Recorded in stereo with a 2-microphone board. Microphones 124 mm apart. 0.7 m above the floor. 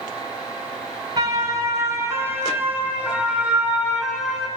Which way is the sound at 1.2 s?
30° right (ahead or behind).